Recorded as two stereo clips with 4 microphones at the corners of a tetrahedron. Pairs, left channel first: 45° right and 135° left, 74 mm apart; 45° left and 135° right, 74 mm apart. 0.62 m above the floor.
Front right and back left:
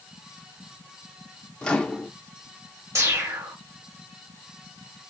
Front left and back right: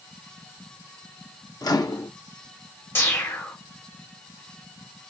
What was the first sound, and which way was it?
A microwave, 30° left.